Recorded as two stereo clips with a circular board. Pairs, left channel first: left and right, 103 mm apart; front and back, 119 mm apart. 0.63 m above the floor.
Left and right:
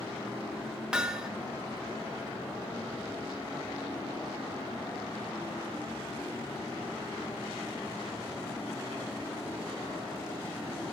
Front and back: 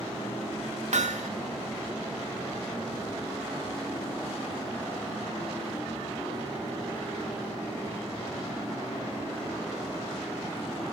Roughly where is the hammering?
Behind.